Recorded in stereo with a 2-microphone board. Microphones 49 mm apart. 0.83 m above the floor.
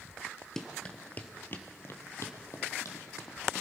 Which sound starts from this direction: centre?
Running footsteps, at 0.6 s.